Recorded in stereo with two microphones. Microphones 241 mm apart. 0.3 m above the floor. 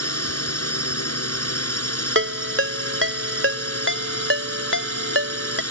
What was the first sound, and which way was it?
A drone, 70° left (ahead or behind).